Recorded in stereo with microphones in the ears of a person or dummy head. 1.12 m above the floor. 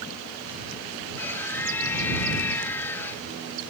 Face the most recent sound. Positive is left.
turn(degrees=15)  # may be behind; listen again after turning